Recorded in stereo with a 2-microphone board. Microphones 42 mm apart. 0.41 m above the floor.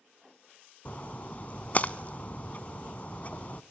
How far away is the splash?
About 0.6 m.